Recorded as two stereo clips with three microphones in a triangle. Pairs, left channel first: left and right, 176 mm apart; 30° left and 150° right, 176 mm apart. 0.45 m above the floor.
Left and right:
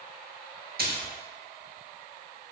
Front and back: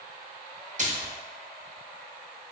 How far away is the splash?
About 0.7 m.